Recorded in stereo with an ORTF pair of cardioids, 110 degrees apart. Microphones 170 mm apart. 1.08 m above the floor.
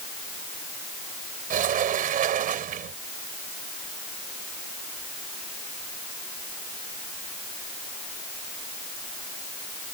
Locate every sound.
1.5 s a sliding door: 55° right